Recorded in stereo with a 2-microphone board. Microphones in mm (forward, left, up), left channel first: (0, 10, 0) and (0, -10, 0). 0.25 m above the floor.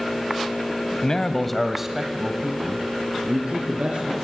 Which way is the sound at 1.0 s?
35° left (ahead or behind).